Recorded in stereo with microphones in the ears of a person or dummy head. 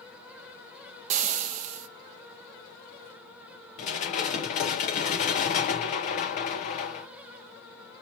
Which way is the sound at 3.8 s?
45° left (ahead or behind).